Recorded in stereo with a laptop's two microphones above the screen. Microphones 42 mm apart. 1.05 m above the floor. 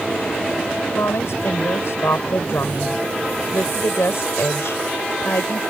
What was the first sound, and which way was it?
A woman speaking, 80° left.